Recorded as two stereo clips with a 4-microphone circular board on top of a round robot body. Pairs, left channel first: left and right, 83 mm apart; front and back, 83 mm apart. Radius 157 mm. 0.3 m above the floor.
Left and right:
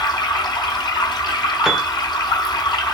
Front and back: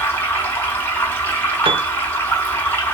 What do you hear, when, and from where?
0.0 s running water: 60° left, 1.6 m
1.6 s a piano: 175° right, 0.6 m